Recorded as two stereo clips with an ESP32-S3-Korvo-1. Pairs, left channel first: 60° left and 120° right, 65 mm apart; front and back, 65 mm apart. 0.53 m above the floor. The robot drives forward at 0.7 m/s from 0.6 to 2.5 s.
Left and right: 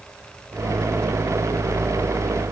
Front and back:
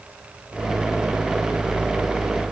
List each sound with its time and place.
Only background noise.